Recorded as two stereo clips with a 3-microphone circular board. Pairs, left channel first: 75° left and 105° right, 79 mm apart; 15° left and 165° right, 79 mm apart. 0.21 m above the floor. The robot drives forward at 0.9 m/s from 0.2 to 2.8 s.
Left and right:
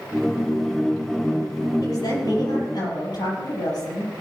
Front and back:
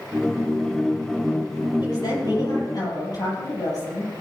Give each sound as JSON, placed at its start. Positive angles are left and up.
{"t": 1.8, "sound": "a woman speaking", "azimuth_deg": 45, "distance_m": 7.0}